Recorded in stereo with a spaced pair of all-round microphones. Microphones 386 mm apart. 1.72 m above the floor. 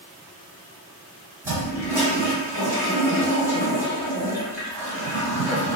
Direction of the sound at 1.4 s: 5° right (ahead or behind).